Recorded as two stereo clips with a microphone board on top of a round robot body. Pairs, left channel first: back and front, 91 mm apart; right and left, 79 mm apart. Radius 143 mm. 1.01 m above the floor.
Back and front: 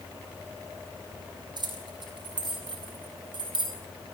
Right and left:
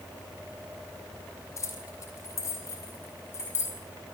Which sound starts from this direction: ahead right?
Keys jangling, at 1.6 s.